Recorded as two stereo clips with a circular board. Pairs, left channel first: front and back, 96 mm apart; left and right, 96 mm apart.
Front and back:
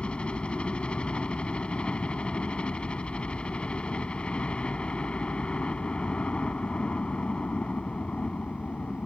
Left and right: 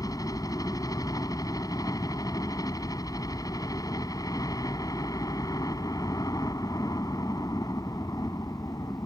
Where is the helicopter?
75° left.